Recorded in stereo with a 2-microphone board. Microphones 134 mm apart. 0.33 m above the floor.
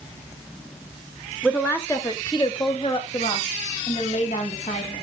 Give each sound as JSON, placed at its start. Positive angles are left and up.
{"t": 1.4, "sound": "a woman speaking", "side_deg": 5, "distance_m": 1.1}